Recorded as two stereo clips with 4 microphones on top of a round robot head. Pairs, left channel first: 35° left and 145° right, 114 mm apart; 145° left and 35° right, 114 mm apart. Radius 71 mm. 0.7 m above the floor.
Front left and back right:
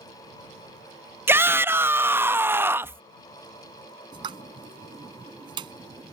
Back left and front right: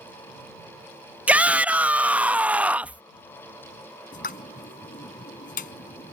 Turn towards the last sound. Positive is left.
turn(degrees=160)